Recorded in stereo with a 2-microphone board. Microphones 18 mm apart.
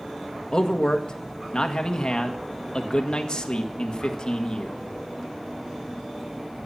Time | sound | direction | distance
0.5 | a man speaking | 45° left (ahead or behind) | 1.7 m